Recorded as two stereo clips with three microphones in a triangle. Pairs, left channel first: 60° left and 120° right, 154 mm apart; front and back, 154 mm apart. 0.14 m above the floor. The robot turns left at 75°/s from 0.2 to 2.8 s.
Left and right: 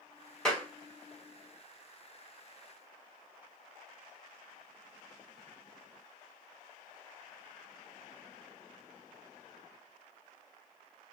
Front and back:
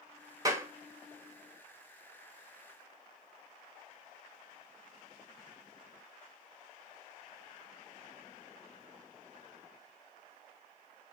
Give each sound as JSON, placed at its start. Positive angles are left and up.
{"t": 0.5, "sound": "a clap", "azimuth_deg": 140, "distance_m": 0.9}